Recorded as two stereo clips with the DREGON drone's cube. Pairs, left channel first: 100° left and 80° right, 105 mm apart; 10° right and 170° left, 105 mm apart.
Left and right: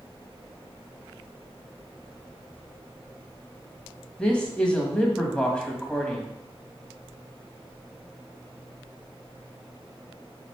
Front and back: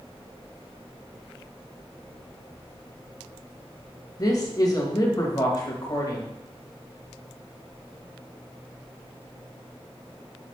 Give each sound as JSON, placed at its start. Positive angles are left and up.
{"t": 4.2, "sound": "a man speaking", "azimuth_deg": 25, "distance_m": 1.4}